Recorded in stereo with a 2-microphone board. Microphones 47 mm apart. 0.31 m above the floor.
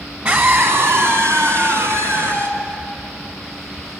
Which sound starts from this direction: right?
A scream, at 0.2 s.